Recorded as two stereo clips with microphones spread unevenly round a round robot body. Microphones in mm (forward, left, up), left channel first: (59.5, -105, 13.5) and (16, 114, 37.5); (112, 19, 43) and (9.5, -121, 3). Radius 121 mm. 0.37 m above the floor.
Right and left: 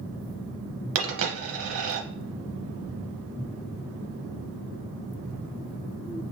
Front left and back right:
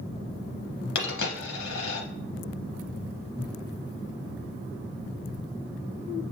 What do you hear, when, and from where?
0.9 s a dropped coin: 75° left, 0.8 m